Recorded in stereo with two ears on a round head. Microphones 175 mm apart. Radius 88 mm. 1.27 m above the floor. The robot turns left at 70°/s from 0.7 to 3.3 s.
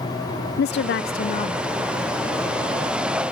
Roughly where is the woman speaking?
Left.